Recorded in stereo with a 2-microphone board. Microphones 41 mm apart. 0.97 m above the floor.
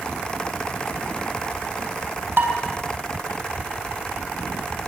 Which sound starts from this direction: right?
Dishes clattering, at 2.4 s.